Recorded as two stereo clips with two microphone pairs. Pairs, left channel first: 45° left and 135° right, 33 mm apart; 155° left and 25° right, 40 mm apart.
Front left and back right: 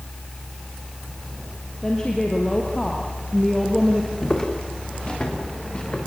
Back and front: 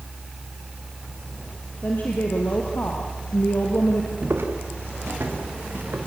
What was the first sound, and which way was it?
A woman speaking, 110° left.